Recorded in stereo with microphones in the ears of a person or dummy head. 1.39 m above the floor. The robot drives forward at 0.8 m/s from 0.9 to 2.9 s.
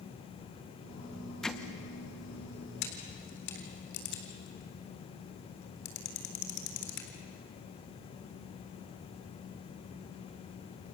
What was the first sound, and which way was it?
Hammering, 5° left (ahead or behind).